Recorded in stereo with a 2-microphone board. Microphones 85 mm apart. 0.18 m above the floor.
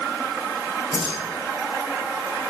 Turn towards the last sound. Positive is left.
turn(degrees=-75)  # may be behind; listen again after turning